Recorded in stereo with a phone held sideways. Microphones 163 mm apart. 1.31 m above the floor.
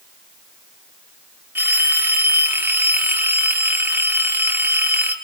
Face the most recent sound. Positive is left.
turn(degrees=-15)  # may be behind; listen again after turning